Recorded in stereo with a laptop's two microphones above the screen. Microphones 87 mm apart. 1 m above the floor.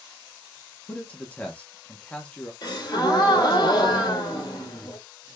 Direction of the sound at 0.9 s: 15° left (ahead or behind).